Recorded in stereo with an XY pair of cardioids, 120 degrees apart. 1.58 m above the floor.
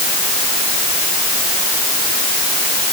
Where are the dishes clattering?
No dishes clattering in this recording.